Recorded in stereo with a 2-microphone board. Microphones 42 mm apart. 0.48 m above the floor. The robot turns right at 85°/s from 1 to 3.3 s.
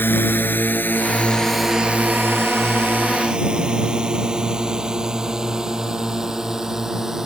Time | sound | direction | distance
0.0 | a drone | 65° left (ahead or behind) | ?